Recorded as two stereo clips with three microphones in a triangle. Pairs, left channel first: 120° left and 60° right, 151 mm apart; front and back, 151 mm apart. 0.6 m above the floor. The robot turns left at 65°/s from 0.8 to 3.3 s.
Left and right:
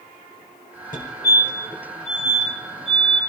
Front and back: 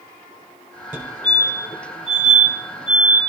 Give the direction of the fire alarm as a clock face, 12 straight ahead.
8 o'clock.